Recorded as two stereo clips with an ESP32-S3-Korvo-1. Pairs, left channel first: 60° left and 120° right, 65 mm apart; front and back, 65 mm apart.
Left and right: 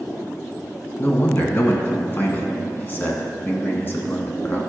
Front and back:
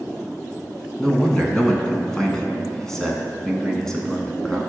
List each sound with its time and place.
1.0 s a man speaking: 75° left, 1.8 m